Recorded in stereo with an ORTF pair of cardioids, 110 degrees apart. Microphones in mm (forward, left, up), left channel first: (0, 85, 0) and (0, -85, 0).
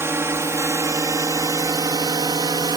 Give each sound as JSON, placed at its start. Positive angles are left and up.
{"t": 0.0, "sound": "a drone", "azimuth_deg": -15}